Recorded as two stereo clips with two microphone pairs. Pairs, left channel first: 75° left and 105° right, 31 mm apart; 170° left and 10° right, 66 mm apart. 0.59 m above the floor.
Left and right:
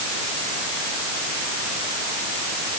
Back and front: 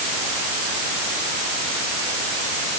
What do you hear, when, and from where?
Only background noise.